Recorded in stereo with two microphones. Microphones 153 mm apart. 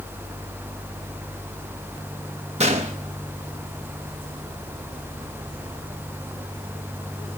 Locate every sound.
2.6 s a gunshot: 45° right (ahead or behind), 0.9 m